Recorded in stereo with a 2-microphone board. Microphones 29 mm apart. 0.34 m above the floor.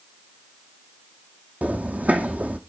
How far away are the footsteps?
About 0.9 m.